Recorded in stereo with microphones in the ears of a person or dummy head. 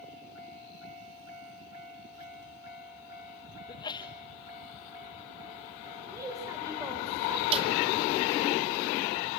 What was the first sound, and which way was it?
A sneeze, 20° left (ahead or behind).